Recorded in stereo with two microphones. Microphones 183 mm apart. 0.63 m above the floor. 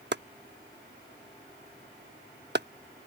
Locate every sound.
0.1 s chopping: 65° right (ahead or behind)